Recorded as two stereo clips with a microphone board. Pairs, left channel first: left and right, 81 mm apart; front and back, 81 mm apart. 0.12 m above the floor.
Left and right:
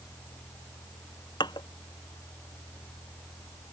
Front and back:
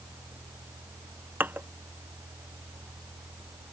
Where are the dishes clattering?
115° left.